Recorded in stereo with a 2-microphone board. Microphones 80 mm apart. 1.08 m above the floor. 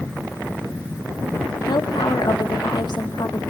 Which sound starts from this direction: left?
A woman speaking, at 1.7 s.